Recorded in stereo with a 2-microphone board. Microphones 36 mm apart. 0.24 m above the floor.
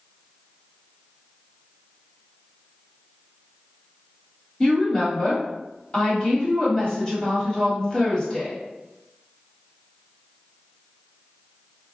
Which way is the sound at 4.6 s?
20° left (ahead or behind).